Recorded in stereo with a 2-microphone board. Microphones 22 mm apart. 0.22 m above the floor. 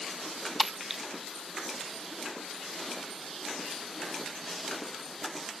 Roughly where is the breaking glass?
Centre.